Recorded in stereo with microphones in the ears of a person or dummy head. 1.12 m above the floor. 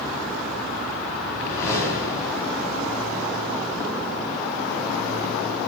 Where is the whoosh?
25° left (ahead or behind), 8 m.